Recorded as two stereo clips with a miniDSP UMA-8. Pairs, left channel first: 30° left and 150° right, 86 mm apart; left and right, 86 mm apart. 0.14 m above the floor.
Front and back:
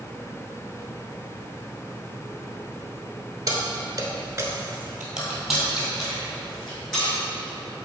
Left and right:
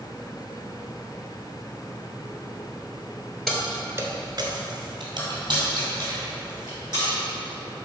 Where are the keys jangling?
175° left, 1.4 m; by 7.1 s 50° right, 5 m.